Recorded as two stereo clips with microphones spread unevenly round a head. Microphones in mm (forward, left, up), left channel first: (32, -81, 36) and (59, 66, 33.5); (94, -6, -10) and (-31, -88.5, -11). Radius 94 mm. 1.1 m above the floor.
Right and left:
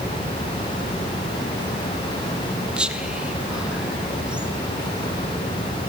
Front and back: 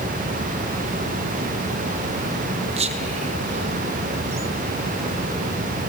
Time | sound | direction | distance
2.8 | whispering | 160° left | 0.9 m